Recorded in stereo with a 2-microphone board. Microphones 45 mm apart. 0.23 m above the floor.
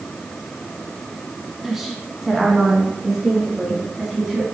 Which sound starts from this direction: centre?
A woman speaking, at 1.6 s.